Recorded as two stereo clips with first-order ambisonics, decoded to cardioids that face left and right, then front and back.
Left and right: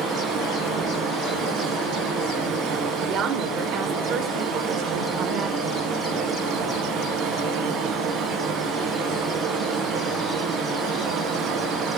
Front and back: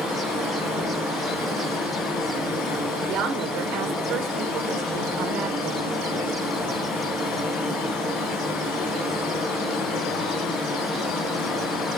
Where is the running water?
45° right, 2.5 m.